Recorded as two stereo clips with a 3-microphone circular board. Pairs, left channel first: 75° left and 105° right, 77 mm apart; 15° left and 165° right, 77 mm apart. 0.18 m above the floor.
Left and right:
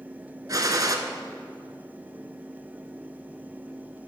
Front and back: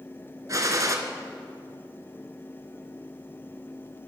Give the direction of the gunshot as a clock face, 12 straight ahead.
4 o'clock.